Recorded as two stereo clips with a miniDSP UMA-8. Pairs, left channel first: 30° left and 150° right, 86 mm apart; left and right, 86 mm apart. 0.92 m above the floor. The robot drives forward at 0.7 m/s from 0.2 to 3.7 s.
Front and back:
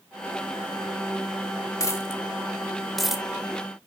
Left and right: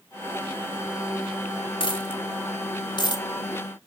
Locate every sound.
1.8 s a dropped coin: 80° left, 1.2 m; by 3.2 s 125° left, 1.4 m